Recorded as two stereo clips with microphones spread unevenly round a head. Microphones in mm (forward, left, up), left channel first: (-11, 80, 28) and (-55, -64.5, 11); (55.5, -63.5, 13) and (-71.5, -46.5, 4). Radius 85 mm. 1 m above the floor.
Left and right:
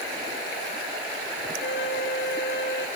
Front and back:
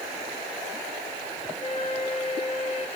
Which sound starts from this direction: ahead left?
A flute, at 1.6 s.